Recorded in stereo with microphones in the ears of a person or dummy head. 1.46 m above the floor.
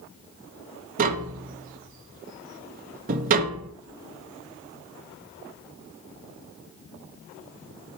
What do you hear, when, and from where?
1.0 s tapping: 40° right (ahead or behind), 0.8 m
3.8 s a whoosh: 80° right, 1.5 m